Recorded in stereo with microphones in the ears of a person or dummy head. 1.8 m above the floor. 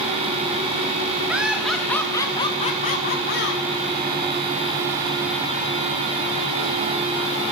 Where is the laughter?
Centre (ahead or behind), 2 m; by 3.6 s 65° left (ahead or behind), 2 m.